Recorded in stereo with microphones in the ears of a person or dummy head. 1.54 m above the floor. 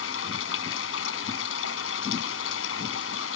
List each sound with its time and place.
0.0 s running water: 80° left